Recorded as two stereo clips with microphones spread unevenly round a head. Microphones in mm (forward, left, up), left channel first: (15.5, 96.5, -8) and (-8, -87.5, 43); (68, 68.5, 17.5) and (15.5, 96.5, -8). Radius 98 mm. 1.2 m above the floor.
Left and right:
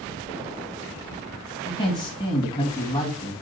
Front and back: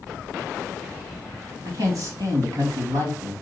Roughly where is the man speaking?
Behind left.